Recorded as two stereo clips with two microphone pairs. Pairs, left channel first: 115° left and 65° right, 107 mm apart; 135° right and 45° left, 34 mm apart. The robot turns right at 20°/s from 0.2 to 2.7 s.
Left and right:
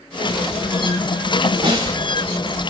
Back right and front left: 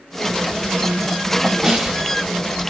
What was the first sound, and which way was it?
A snare drum, 20° right.